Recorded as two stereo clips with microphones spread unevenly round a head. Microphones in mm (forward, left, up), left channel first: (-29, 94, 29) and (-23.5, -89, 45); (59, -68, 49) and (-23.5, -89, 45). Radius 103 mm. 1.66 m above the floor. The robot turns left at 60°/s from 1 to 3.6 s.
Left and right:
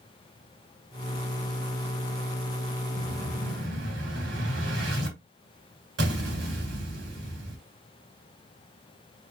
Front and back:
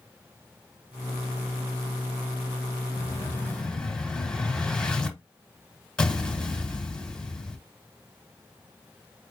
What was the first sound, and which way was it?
An explosion, 25° right.